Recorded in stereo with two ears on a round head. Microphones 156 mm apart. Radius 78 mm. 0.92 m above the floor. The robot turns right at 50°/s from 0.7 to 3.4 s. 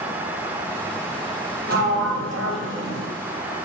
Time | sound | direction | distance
1.7 | a sliding door | 125° right | 0.8 m